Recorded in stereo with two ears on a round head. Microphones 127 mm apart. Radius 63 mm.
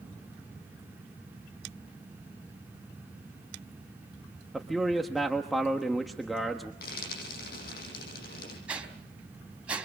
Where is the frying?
70° left (ahead or behind), 10 m.